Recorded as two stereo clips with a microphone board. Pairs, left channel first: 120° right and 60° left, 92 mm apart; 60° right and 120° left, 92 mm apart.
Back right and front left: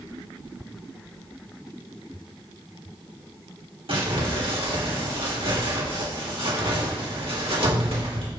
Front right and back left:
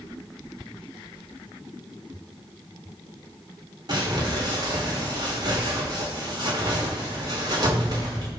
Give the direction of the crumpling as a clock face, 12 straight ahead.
9 o'clock.